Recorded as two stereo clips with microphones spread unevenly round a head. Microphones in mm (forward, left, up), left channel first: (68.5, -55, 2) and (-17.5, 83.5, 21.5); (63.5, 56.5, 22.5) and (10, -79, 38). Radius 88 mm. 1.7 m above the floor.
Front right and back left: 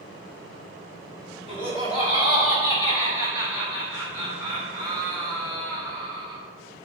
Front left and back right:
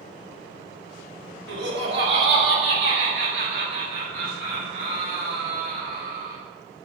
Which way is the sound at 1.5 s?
120° right.